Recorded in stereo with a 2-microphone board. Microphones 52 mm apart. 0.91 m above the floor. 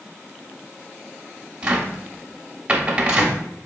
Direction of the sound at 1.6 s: 25° right (ahead or behind).